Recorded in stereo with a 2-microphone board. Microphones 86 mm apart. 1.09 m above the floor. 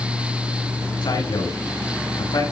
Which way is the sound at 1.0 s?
75° left (ahead or behind).